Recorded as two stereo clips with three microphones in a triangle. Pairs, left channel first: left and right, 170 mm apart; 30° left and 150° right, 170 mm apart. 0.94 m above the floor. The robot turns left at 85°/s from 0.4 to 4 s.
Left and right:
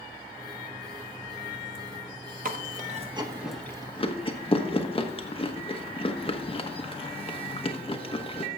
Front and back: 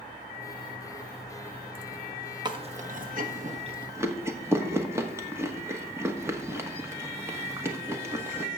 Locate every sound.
2.5 s chewing: 90° right, 1.1 m; by 8.5 s 140° left, 1.1 m